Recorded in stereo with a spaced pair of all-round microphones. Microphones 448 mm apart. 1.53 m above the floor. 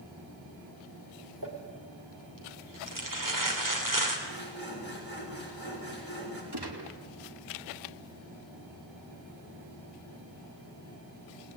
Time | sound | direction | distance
1.4 | crumpling | 45° right (ahead or behind) | 3 m
4.3 | sawing | 90° left | 6 m
6.5 | a gunshot | 60° right (ahead or behind) | 2.5 m